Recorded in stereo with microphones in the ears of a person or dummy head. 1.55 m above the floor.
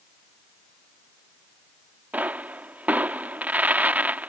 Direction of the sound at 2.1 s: 5° right (ahead or behind).